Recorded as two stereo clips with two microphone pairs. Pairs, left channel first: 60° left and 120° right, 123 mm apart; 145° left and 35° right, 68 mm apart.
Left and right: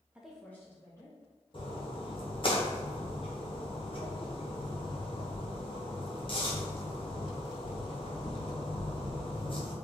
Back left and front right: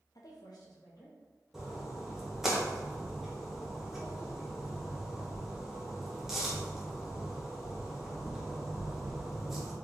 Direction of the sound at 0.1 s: 160° left.